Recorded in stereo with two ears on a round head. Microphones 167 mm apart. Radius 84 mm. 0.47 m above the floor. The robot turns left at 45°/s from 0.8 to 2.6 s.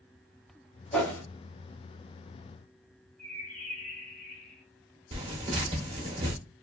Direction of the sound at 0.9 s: 5° left (ahead or behind).